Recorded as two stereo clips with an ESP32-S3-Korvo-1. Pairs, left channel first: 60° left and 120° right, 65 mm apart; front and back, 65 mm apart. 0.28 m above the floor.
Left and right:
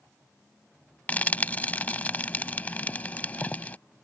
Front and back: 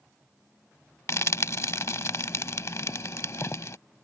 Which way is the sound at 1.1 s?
5° left.